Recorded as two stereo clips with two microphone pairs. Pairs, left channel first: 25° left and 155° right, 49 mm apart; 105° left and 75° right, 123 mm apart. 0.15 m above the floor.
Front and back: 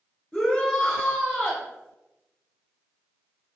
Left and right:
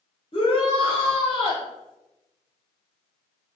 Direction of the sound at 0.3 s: 90° left.